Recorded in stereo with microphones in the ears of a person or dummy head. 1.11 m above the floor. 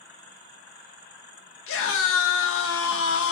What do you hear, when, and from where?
1.7 s a scream: 65° left (ahead or behind), 1.0 m